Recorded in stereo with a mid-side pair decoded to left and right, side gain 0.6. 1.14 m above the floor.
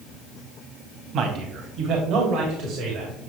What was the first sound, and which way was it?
A man speaking, 50° right.